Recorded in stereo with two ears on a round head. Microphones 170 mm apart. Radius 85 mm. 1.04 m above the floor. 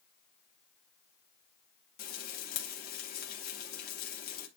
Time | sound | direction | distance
2.0 | frying | 55° left (ahead or behind) | 2 m